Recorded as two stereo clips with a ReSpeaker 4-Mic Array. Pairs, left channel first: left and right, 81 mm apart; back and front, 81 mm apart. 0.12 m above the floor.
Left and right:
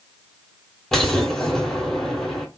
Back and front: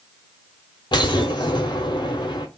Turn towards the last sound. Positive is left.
turn(degrees=175)